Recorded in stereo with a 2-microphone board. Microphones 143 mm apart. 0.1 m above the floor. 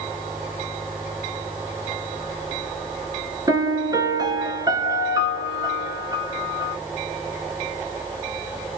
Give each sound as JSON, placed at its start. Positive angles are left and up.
{"t": 3.5, "sound": "a piano", "side_deg": -25, "distance_m": 0.6}